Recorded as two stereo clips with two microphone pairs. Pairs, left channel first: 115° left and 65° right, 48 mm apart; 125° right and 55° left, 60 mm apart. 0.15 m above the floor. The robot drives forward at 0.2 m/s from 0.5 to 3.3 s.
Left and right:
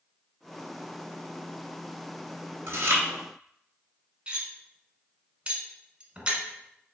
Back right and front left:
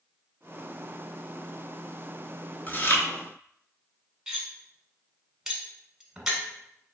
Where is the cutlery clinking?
25° right, 0.7 m.